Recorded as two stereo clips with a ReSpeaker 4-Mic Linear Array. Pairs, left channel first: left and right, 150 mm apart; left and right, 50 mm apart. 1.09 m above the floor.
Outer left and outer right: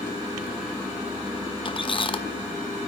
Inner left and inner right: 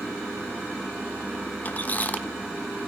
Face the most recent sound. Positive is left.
turn(degrees=35)  # may be behind; listen again after turning